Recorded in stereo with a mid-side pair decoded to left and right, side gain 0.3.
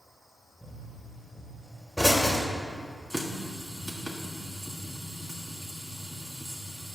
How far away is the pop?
About 3 m.